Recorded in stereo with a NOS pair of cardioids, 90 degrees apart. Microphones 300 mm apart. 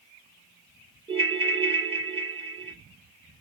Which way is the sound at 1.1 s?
20° right.